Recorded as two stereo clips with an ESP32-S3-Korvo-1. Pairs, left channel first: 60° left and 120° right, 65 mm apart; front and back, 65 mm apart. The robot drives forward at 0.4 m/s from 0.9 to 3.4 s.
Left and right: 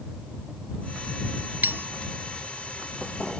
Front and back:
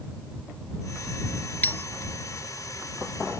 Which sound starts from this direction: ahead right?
A bell, at 1.6 s.